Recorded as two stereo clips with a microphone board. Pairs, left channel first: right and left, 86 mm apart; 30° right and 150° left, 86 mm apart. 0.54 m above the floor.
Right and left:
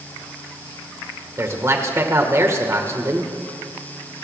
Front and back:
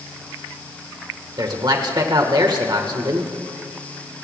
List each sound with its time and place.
1.4 s a man speaking: 135° left, 1.8 m